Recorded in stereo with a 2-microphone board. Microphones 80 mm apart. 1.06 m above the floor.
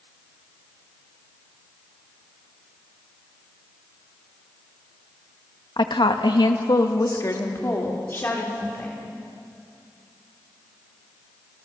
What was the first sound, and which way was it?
A woman speaking, 70° left (ahead or behind).